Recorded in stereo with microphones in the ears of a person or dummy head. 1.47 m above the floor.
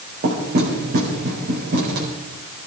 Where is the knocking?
50° right (ahead or behind), 4.5 m.